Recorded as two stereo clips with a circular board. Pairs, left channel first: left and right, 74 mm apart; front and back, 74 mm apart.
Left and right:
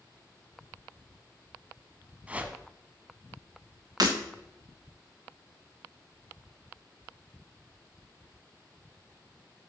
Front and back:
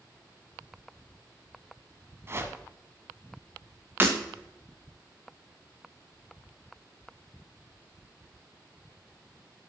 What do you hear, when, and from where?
2.3 s a whoosh: 150° right, 0.9 m
4.0 s breaking glass: 120° right, 1.7 m